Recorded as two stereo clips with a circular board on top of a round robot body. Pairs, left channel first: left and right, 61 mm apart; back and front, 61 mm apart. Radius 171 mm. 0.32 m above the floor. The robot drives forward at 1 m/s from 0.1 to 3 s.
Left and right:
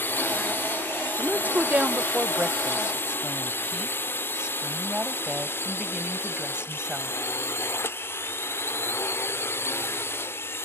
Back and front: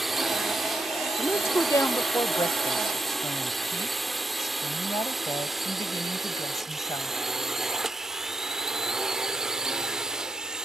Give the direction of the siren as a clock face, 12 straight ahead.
No siren in this recording.